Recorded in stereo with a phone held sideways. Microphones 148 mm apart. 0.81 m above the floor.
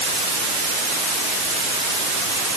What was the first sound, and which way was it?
Only background noise.